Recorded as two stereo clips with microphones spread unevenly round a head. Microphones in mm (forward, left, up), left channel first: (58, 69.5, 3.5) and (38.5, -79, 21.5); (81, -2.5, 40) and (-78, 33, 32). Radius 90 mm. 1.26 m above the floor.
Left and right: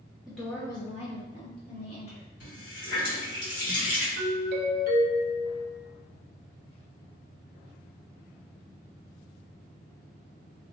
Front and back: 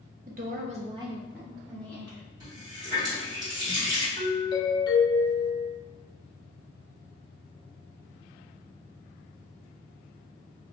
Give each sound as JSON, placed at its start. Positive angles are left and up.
{"t": 0.3, "sound": "a woman speaking", "azimuth_deg": 170, "distance_m": 0.7}
{"t": 2.4, "sound": "a running tap", "azimuth_deg": 100, "distance_m": 1.7}
{"t": 4.2, "sound": "a doorbell", "azimuth_deg": -75, "distance_m": 0.6}